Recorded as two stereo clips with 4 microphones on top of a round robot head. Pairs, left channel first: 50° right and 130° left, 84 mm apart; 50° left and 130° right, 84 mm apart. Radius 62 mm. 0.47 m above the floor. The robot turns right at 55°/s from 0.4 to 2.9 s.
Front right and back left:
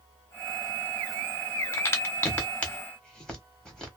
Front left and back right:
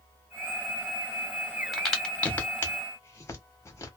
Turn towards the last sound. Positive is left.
turn(degrees=25)